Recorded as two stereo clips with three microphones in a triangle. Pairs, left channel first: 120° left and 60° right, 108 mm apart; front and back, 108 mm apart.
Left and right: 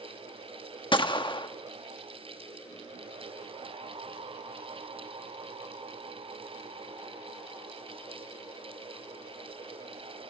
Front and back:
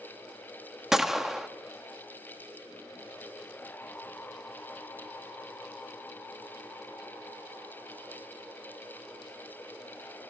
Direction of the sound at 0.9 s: 95° left.